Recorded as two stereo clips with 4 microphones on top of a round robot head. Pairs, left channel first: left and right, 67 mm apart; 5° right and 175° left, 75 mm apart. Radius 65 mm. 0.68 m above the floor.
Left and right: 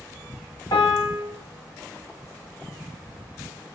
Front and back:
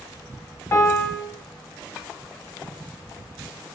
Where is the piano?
55° left, 1.2 m.